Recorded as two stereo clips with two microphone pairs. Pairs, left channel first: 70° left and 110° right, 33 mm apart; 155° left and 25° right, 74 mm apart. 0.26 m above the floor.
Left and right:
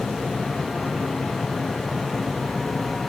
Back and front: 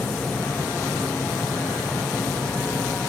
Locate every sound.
Only background noise.